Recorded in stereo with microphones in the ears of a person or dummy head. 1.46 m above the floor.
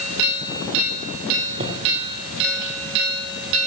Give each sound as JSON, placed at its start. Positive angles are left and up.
{"t": 1.6, "sound": "footsteps", "side_deg": -40, "distance_m": 3.0}